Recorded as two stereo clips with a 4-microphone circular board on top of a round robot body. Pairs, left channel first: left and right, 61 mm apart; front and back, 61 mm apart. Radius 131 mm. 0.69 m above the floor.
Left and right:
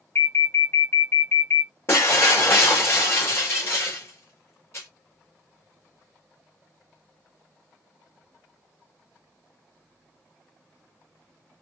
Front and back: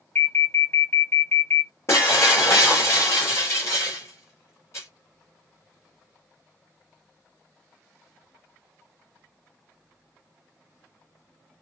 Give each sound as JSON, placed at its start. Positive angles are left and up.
{"t": 0.1, "sound": "an alarm", "azimuth_deg": 50, "distance_m": 1.9}
{"t": 1.9, "sound": "breaking glass", "azimuth_deg": 45, "distance_m": 3.5}